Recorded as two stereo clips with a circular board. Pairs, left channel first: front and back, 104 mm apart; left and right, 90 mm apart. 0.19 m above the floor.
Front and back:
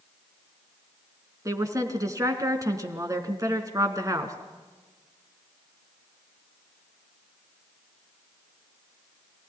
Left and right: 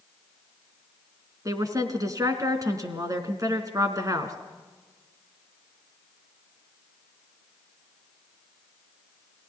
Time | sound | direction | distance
1.4 | a woman speaking | 130° right | 2.5 m